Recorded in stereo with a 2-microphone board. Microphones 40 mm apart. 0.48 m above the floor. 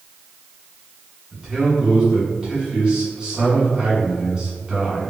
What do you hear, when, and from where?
1.3 s a man speaking: 10° right (ahead or behind), 1.6 m